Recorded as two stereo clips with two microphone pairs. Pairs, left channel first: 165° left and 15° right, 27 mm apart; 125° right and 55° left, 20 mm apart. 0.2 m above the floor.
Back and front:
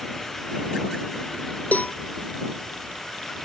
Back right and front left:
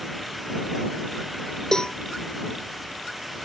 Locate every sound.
1.7 s a cowbell: 175° left